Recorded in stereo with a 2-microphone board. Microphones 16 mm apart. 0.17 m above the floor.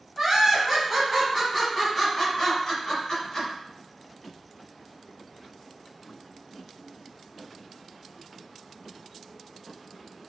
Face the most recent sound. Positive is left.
turn(degrees=45)  # may be behind; listen again after turning